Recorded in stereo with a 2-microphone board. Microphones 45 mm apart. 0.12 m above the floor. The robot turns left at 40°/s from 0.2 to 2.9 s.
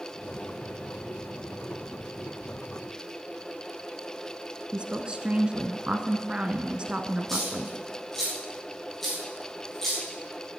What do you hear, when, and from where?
4.7 s a woman speaking: 25° right (ahead or behind), 1.1 m
7.3 s a dropped coin: 5° left (ahead or behind), 7.5 m